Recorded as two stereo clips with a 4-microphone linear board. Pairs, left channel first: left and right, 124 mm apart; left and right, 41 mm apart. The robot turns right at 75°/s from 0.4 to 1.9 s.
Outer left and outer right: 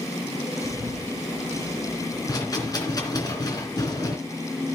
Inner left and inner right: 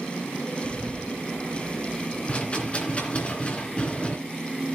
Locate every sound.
0.6 s a bird: 25° left, 6 m; by 2.2 s 120° left, 6 m
2.3 s a rattle: 35° left (ahead or behind), 2.5 m